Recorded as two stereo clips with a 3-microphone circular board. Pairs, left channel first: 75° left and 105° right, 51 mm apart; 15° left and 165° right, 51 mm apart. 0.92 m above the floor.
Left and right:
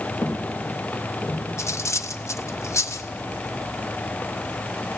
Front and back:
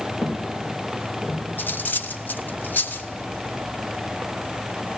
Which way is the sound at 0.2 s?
55° left.